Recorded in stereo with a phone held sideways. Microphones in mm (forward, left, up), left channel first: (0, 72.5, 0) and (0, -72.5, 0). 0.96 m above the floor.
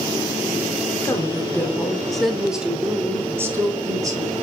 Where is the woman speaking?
20° left (ahead or behind), 2.5 m; by 4.4 s 25° right (ahead or behind), 3 m.